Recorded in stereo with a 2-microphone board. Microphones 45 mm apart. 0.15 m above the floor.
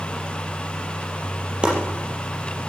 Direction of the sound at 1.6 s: 20° right (ahead or behind).